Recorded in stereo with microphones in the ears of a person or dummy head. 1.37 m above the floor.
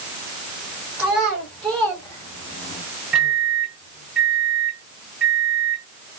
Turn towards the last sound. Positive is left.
turn(degrees=-5)  # may be behind; listen again after turning